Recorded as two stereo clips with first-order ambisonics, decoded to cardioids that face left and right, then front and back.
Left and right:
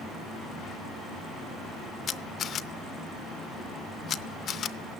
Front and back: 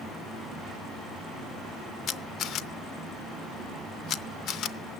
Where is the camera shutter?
40° left, 0.5 m.